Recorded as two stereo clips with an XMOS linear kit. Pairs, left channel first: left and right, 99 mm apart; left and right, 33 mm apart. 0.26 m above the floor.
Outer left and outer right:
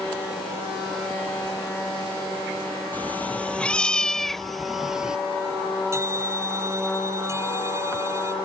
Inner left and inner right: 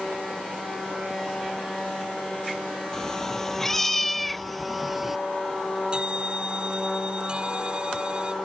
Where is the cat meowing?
15° left (ahead or behind); by 5.2 s 10° right (ahead or behind).